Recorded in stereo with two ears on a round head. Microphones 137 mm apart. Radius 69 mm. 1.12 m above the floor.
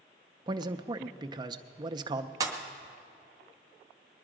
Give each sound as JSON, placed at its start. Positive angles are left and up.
{"t": 0.5, "sound": "a man speaking", "side_deg": -30, "distance_m": 0.6}
{"t": 2.4, "sound": "a pop", "side_deg": -25, "distance_m": 1.1}